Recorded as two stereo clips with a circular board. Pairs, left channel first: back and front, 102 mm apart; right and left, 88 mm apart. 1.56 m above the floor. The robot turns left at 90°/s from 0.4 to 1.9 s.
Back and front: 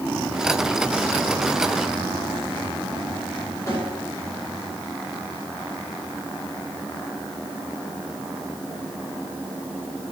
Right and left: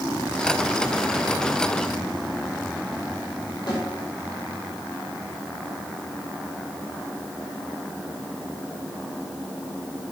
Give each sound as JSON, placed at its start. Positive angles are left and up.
{"t": 3.7, "sound": "a snare drum", "azimuth_deg": -120, "distance_m": 5.0}